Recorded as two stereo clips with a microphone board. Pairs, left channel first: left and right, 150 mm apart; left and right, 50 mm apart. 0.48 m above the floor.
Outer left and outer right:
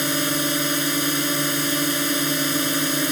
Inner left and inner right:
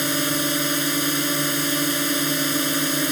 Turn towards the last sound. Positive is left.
turn(degrees=0)  # may be behind; listen again after turning